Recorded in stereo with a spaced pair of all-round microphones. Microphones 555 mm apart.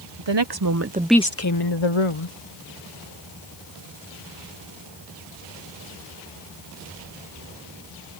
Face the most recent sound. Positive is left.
turn(degrees=70)  # may be behind; listen again after turning